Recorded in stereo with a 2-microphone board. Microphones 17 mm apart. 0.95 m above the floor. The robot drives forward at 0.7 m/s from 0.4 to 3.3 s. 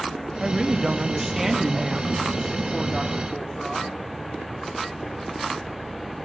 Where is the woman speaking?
35° right (ahead or behind), 0.9 m; by 4.0 s 10° right (ahead or behind), 2.5 m.